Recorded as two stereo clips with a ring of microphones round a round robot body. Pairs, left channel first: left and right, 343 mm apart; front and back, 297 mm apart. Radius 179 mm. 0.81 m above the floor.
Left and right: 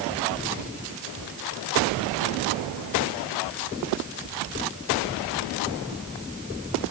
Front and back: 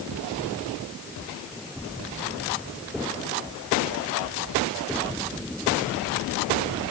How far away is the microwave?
I don't hear a microwave.